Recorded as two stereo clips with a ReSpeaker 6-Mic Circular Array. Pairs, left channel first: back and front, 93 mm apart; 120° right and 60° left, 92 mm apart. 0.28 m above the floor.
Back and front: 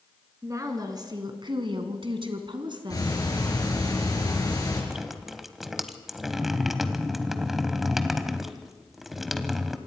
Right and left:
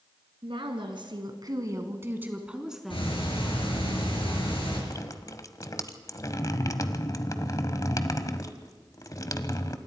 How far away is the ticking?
About 5.5 m.